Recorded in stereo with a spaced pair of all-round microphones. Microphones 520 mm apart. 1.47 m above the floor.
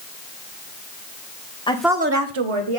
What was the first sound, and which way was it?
A woman speaking, 10° left (ahead or behind).